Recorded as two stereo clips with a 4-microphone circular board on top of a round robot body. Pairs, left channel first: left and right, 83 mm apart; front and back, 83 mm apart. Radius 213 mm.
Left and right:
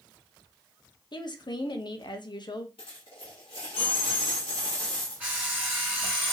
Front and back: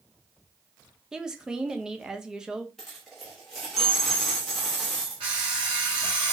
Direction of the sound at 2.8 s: 85° left.